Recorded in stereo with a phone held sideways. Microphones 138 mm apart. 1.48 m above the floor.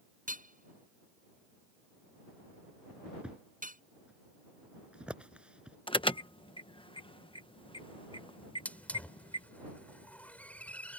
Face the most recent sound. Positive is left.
turn(degrees=10)  # may be behind; listen again after turning